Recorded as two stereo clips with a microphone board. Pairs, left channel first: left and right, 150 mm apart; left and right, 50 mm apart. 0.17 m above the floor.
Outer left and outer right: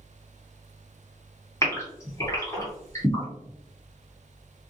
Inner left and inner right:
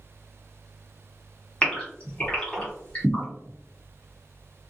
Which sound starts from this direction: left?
A gasp, at 1.6 s.